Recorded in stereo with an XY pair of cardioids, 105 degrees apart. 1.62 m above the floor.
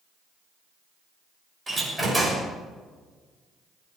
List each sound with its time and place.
1.7 s a door slam: 15° right, 6.5 m